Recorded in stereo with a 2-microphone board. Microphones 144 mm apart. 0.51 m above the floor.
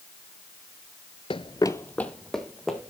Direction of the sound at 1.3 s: 40° left (ahead or behind).